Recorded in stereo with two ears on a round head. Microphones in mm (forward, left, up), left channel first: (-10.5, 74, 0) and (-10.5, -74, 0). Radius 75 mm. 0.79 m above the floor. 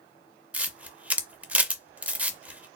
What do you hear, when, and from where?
0.5 s a camera shutter: 10° right (ahead or behind), 0.5 m